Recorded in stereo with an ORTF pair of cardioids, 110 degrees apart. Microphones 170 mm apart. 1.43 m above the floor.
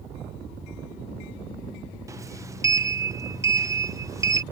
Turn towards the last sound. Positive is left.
turn(degrees=-20)